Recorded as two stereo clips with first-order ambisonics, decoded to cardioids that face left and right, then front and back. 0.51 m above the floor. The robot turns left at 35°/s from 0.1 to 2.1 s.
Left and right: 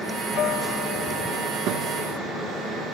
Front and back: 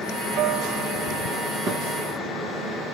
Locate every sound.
0.3 s a guitar: 140° left, 1.3 m; by 2.3 s 80° left, 1.3 m
1.7 s a thud: 125° right, 2 m; by 2.0 s 135° right, 2 m